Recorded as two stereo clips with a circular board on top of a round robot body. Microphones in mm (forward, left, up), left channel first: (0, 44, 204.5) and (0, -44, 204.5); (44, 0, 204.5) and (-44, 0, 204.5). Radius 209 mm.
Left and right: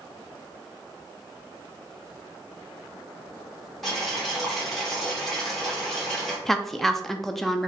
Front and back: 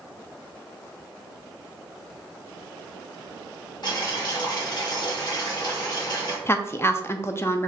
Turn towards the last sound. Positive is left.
turn(degrees=5)